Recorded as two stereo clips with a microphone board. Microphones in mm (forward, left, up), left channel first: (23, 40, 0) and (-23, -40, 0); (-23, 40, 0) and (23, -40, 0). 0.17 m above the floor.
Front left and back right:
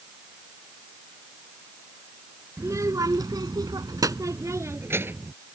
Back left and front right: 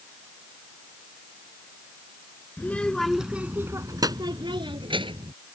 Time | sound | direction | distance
2.6 | a child speaking | 170° right | ?